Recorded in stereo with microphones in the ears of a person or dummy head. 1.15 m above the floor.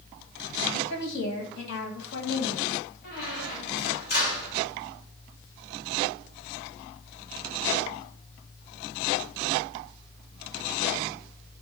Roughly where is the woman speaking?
Left.